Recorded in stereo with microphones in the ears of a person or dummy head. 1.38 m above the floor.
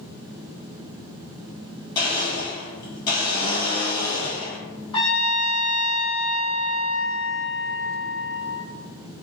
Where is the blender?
25° left (ahead or behind), 1.6 m.